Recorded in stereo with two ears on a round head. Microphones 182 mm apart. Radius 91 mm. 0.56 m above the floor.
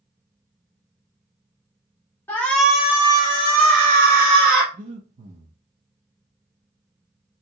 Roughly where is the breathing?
Right.